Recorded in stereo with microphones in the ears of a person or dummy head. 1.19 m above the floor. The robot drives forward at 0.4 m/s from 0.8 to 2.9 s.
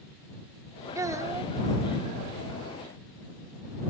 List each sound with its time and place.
0.9 s a child speaking: 20° right (ahead or behind); by 1.5 s 15° right (ahead or behind)